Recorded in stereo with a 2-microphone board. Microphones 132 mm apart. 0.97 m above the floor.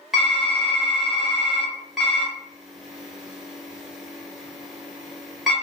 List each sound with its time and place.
0.1 s typing on a keyboard: centre (ahead or behind), 0.9 m